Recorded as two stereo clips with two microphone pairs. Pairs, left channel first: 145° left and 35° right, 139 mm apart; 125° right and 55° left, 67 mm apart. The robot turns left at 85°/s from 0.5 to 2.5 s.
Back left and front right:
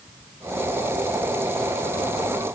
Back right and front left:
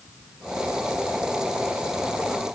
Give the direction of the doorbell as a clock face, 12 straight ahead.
No doorbell in this recording.